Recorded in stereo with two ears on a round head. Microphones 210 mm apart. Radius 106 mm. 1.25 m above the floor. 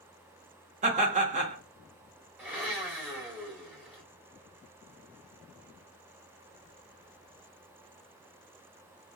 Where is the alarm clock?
I don't hear an alarm clock.